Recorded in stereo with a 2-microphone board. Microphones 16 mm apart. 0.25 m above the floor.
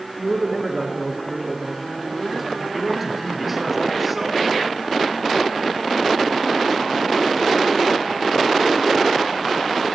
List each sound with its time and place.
0.2 s a man speaking: 20° right (ahead or behind), 4 m
2.7 s a man speaking: 20° right (ahead or behind), 4.5 m